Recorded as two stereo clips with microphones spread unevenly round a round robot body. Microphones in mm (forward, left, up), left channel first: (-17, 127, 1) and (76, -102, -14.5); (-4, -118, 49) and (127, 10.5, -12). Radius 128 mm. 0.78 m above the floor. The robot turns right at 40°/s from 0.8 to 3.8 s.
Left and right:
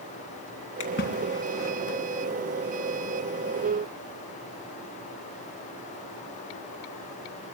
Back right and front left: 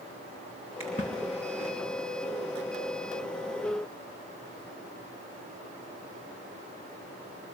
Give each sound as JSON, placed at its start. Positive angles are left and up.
{"t": 0.8, "sound": "a splash", "azimuth_deg": 155, "distance_m": 3.0}